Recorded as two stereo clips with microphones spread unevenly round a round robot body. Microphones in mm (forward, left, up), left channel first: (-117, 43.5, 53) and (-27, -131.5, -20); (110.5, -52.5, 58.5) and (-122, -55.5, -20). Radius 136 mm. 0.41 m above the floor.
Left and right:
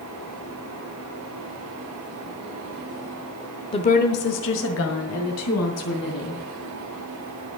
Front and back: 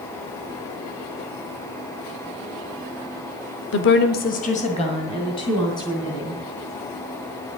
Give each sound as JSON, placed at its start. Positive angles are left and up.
{"t": 3.7, "sound": "a woman speaking", "azimuth_deg": 35, "distance_m": 0.9}